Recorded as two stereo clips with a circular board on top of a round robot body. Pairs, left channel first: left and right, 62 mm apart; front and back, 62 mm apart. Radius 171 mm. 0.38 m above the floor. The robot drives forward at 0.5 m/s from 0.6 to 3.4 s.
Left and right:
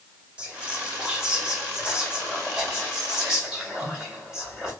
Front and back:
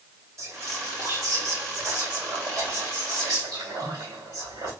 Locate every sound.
0.4 s whispering: 160° right, 1.3 m; by 4.7 s 170° right, 2.5 m